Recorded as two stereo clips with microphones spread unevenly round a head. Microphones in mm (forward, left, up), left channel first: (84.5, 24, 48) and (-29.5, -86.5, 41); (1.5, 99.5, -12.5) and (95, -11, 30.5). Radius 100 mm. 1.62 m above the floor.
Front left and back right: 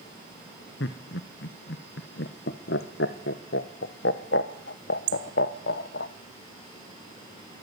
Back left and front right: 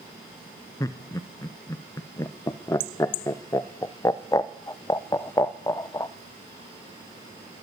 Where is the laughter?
55° left, 0.8 m.